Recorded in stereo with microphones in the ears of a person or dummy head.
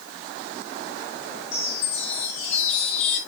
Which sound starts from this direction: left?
A chime, at 1.5 s.